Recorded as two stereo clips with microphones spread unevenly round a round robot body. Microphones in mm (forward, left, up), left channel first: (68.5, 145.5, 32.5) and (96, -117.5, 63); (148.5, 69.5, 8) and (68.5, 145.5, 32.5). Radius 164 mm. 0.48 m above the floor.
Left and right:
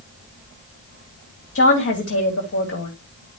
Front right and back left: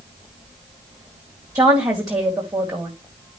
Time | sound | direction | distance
1.6 | a woman speaking | 70° left | 3 m